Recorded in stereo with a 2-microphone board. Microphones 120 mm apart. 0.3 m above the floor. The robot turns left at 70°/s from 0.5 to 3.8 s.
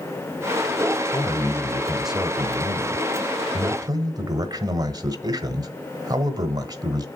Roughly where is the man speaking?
Ahead left.